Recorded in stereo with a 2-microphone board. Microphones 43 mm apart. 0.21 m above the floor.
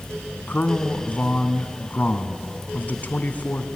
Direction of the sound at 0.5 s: 40° left (ahead or behind).